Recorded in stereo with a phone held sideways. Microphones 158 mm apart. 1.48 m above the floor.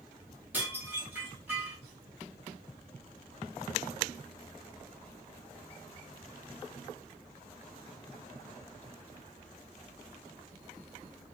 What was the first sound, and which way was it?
Dishes clattering, 10° right (ahead or behind).